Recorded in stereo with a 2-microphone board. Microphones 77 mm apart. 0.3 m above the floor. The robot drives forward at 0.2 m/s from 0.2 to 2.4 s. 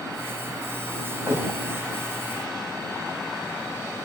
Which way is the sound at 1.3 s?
30° right (ahead or behind).